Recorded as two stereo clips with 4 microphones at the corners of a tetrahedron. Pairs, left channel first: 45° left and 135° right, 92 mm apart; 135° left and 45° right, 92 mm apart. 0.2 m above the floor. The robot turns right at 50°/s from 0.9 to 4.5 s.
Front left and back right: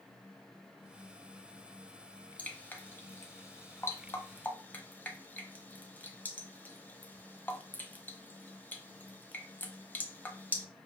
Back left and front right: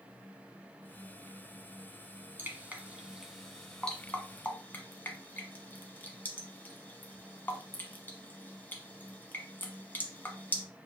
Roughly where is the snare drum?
No snare drum in this recording.